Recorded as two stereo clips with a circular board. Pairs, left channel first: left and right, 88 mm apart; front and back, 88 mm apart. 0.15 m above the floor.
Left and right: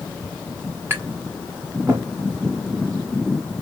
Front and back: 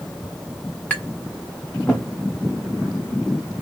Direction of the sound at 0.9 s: 65° right.